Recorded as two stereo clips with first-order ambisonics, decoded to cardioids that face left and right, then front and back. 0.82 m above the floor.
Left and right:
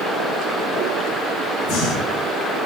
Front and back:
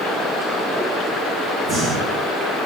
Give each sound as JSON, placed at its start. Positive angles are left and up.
{"t": 1.6, "sound": "breathing", "azimuth_deg": 115, "distance_m": 3.5}